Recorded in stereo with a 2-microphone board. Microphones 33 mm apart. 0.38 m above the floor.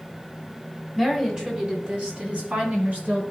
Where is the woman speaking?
15° right (ahead or behind), 2.5 m; by 3.2 s 50° right (ahead or behind), 4.5 m.